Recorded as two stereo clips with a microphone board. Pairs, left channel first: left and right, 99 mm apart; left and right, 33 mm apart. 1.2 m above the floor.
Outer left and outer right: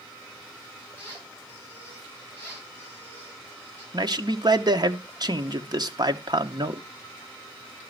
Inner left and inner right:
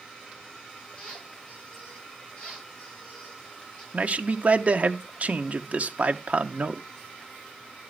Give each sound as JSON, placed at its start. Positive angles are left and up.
{"t": 1.0, "sound": "a squeak", "side_deg": 20, "distance_m": 7.0}
{"t": 3.9, "sound": "a man speaking", "side_deg": -45, "distance_m": 1.1}